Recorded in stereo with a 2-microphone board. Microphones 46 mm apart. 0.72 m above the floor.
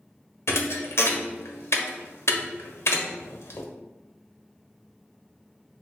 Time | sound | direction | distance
0.5 | a thud | 70° left (ahead or behind) | 0.8 m